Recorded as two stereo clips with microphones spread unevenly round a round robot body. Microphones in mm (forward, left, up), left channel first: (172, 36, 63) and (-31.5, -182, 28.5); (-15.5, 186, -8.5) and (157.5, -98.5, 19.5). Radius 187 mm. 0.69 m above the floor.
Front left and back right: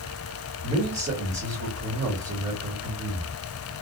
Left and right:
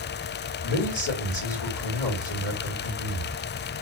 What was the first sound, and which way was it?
A man speaking, 160° left.